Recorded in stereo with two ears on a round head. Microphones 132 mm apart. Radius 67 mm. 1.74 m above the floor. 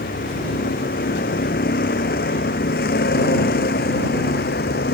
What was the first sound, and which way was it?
A vehicle, 65° left (ahead or behind).